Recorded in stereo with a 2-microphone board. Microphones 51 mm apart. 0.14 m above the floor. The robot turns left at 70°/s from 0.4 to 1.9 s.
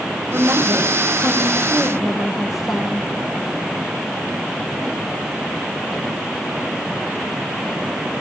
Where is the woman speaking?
75° right, 6 m; by 3.1 s straight behind, 6 m.